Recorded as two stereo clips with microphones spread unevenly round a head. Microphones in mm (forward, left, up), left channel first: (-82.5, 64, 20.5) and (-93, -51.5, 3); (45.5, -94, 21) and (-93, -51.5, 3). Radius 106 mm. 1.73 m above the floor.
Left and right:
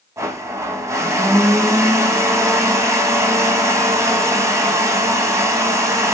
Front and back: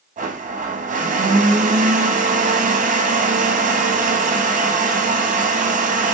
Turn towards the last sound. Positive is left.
turn(degrees=-165)